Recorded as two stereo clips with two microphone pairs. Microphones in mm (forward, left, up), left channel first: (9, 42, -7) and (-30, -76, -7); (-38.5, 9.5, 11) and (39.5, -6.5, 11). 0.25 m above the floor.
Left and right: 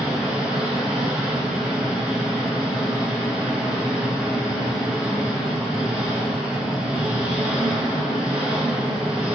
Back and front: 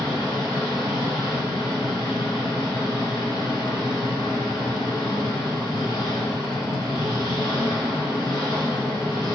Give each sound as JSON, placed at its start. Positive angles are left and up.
{"t": 0.0, "sound": "an engine running", "azimuth_deg": 170, "distance_m": 0.8}